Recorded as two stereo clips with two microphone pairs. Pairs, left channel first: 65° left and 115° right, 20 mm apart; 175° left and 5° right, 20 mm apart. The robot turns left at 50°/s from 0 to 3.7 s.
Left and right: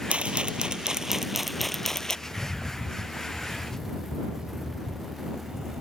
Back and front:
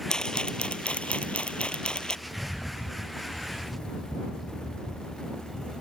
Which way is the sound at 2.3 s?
20° right.